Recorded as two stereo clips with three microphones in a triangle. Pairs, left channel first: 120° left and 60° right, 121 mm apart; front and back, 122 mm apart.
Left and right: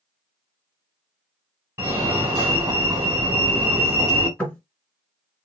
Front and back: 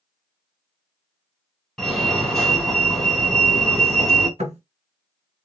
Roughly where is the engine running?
No engine running in this recording.